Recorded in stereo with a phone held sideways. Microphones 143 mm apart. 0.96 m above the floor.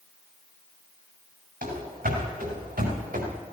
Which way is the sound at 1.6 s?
80° right.